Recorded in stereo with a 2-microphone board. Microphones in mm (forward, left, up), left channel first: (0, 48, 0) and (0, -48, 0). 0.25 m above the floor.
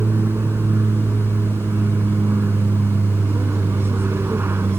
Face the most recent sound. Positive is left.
turn(degrees=-25)  # may be behind; listen again after turning